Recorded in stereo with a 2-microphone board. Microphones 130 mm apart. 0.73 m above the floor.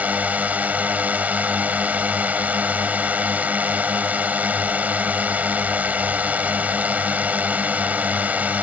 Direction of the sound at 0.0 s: 10° right (ahead or behind).